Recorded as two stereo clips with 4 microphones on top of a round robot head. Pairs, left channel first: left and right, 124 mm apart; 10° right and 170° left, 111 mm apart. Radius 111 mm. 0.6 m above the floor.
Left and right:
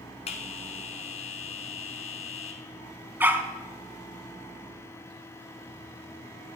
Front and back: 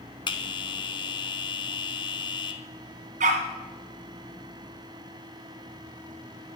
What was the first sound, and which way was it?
A bell, 35° left.